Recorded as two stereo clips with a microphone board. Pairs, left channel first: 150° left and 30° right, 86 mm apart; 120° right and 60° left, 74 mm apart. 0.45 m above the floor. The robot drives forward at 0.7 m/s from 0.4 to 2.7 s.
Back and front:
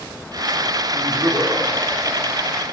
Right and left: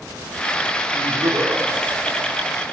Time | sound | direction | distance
0.9 | laughter | 35° left | 5.5 m